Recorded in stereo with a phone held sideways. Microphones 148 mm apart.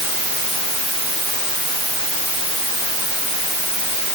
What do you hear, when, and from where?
Only background noise.